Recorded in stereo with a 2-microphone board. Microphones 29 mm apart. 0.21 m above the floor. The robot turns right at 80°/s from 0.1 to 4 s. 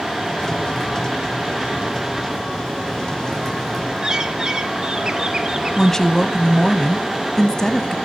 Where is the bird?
25° right (ahead or behind), 1.2 m.